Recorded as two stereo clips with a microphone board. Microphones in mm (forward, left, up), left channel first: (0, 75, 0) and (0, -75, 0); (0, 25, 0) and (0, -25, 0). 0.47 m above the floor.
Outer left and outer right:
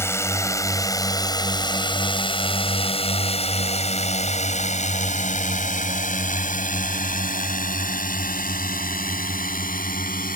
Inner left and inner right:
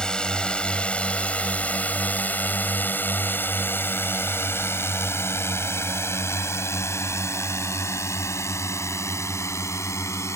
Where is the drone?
15° left (ahead or behind); by 10.4 s 70° left (ahead or behind).